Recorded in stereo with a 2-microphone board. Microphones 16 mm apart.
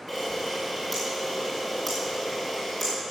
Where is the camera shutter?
5° right (ahead or behind), 6 m.